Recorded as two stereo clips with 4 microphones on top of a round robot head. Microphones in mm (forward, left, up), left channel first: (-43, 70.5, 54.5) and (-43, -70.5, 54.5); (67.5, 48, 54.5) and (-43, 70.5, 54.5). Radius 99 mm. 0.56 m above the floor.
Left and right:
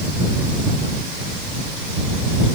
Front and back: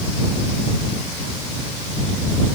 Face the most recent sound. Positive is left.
No sound to turn to.